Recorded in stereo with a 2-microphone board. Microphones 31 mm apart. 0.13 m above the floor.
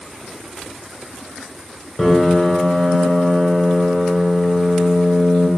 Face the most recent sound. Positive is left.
turn(degrees=0)  # may be behind; listen again after turning